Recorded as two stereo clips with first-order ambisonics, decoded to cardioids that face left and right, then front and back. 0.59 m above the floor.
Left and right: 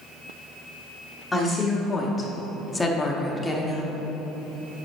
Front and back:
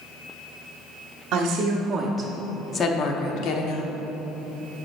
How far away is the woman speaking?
About 1.3 m.